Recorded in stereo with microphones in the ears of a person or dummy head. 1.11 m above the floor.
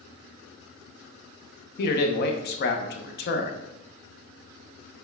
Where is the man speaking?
50° left (ahead or behind), 0.7 m.